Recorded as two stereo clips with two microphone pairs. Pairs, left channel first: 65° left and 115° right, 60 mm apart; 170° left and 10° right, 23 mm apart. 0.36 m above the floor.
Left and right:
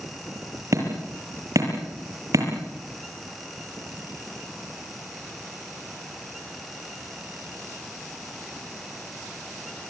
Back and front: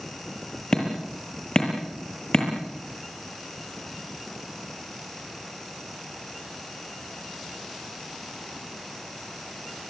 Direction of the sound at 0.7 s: 140° right.